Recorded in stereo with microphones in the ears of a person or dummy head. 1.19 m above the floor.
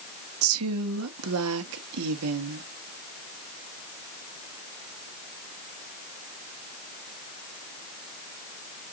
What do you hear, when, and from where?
0.4 s a woman speaking: 75° right (ahead or behind), 1.2 m